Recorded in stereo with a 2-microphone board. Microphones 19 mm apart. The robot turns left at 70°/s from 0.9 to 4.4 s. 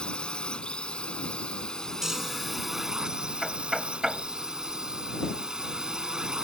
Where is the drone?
110° left; by 6.5 s 135° right.